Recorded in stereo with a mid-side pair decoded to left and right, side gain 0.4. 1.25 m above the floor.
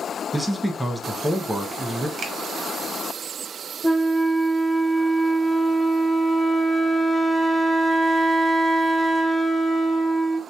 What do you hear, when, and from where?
0.3 s a man speaking: 10° right, 0.7 m
2.2 s a finger snap: 55° right, 1.0 m
3.8 s a flute: 5° left, 0.5 m